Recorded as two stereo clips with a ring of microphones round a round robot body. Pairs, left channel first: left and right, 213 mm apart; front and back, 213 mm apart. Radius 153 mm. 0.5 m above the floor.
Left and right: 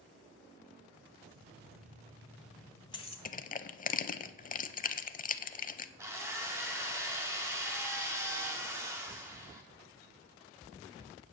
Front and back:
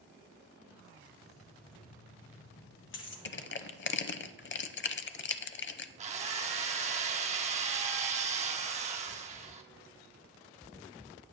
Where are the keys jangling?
65° right, 2 m; by 3.1 s 30° left, 1.9 m.